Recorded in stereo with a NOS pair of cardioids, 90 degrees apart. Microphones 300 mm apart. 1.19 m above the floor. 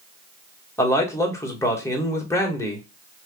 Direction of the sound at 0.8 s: 10° left.